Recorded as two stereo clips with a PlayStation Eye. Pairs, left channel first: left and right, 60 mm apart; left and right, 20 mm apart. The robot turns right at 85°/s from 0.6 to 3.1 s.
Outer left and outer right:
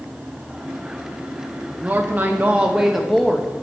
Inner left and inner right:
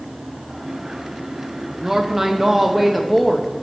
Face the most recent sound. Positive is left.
turn(degrees=5)  # may be behind; listen again after turning